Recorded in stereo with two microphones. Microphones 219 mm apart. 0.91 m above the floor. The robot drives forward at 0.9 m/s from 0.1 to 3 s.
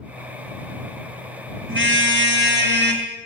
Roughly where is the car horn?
Right.